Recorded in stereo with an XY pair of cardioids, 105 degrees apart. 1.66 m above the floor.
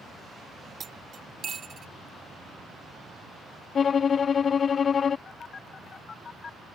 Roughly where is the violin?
Ahead left.